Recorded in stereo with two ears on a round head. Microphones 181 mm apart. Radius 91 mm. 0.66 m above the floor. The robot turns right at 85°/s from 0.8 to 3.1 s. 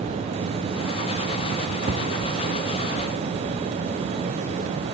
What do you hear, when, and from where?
1.9 s an explosion: 45° right (ahead or behind), 3 m; by 2.4 s 5° right (ahead or behind), 3 m